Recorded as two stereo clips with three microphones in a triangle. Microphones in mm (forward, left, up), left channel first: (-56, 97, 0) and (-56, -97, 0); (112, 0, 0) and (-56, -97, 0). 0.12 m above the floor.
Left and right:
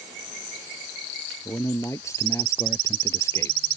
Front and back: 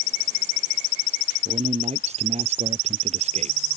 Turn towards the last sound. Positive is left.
turn(degrees=165)